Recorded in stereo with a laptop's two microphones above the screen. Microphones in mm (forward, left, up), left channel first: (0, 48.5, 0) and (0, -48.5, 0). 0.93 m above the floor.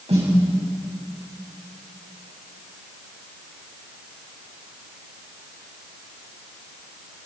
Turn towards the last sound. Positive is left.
turn(degrees=-80)